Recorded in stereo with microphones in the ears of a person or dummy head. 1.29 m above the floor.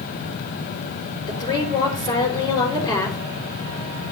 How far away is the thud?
No thud in this recording.